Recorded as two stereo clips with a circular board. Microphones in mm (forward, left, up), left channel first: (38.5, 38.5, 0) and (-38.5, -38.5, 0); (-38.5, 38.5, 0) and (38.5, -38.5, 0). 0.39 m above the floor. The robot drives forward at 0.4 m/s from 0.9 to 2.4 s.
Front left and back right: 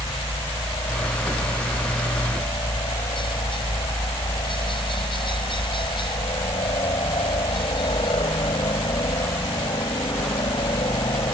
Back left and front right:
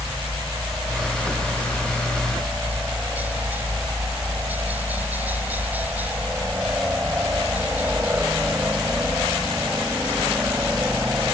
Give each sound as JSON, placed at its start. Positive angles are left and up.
{"t": 0.0, "sound": "a helicopter", "azimuth_deg": 25}